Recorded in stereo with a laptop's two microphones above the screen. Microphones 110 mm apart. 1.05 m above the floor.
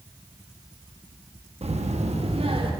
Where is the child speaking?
65° right (ahead or behind), 0.9 m; by 2.7 s 55° right (ahead or behind), 2 m.